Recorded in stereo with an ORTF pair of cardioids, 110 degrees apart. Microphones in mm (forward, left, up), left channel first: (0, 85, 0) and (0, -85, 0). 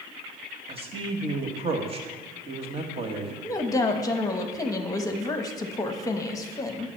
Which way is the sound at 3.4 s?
20° left.